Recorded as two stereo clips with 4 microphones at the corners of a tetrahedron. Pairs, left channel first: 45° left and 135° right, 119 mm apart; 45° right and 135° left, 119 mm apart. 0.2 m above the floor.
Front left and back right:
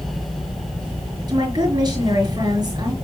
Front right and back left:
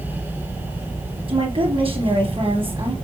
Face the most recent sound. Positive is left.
turn(degrees=170)